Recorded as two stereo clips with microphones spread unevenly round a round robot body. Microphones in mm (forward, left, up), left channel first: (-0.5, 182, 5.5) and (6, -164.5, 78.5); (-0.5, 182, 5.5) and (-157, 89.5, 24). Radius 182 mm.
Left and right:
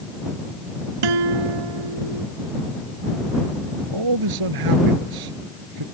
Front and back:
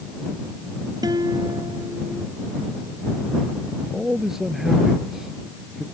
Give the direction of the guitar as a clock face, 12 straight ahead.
2 o'clock.